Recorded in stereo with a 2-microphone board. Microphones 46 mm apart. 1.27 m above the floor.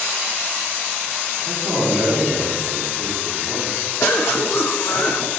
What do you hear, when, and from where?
1.4 s a man speaking: 70° right (ahead or behind), 2.5 m
4.0 s a cough: 70° left (ahead or behind), 0.6 m